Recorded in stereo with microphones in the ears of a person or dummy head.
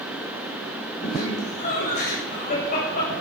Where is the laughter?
55° left (ahead or behind), 6.5 m; by 3.1 s 50° left (ahead or behind), 8 m.